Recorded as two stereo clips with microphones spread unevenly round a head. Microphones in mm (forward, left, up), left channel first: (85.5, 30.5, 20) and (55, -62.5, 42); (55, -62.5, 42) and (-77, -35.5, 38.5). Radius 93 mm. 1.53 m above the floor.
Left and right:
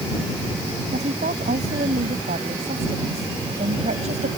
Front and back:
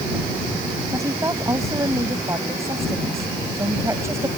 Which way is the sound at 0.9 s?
125° right.